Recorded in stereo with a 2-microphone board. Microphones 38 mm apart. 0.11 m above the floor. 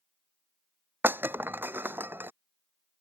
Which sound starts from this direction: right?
Breaking glass, at 1.0 s.